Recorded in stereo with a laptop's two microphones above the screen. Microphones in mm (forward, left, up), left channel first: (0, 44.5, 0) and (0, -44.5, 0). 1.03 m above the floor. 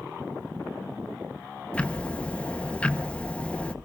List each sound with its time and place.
1.7 s ticking: 15° left (ahead or behind), 1.0 m